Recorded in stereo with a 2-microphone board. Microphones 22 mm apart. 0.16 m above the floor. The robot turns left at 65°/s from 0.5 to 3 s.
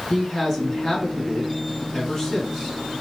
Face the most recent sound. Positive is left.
turn(degrees=-25)